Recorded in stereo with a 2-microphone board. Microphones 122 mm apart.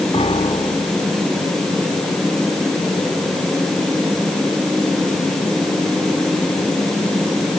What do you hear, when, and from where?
0.1 s a piano: 50° left (ahead or behind)